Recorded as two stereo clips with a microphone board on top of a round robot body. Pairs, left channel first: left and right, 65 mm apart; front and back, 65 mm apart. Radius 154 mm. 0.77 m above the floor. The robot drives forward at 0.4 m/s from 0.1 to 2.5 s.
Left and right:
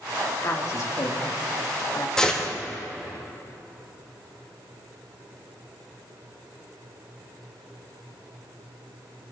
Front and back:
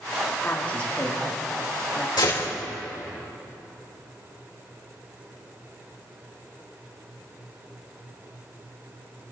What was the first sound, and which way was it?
A woman speaking, 60° left.